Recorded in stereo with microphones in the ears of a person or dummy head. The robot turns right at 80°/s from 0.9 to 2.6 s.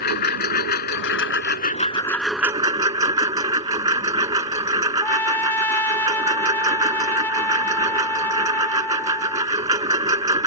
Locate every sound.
0.0 s a lawn mower: 70° left; by 10.5 s 155° right
5.0 s a trumpet: 10° left (ahead or behind)